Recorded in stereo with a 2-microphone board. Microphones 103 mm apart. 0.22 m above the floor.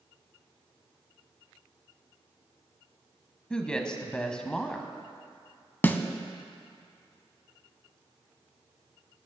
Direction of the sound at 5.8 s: 20° left (ahead or behind).